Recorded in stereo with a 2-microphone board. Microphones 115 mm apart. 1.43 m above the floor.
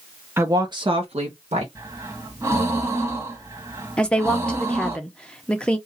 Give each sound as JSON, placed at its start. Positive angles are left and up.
{"t": 0.4, "sound": "a woman speaking", "side_deg": -20, "distance_m": 1.0}
{"t": 1.8, "sound": "breathing", "side_deg": -25, "distance_m": 1.6}
{"t": 4.0, "sound": "a woman speaking", "side_deg": 10, "distance_m": 0.9}